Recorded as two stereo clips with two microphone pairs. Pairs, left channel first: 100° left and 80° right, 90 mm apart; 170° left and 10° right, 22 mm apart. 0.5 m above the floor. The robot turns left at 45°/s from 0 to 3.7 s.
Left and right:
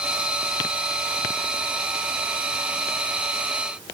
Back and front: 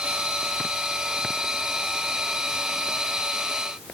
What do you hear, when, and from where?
Only background noise.